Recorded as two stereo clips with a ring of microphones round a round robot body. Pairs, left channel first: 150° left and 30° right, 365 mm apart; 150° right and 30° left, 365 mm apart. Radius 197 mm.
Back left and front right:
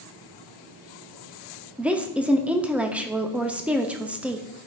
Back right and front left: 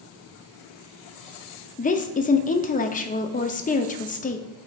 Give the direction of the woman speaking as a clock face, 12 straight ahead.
4 o'clock.